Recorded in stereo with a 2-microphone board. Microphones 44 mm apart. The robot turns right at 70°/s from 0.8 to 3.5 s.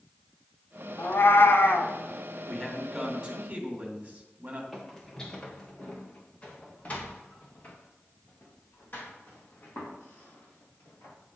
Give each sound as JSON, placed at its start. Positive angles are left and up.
{"t": 1.0, "sound": "a cat meowing", "azimuth_deg": 55, "distance_m": 1.0}
{"t": 2.5, "sound": "a man speaking", "azimuth_deg": 150, "distance_m": 2.0}
{"t": 4.7, "sound": "footsteps", "side_deg": 5, "distance_m": 1.6}